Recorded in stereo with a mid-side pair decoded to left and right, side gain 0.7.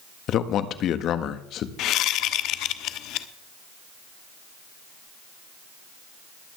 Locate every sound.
0.3 s a man speaking: 50° left, 1.5 m
1.8 s a whoosh: 55° left, 1.0 m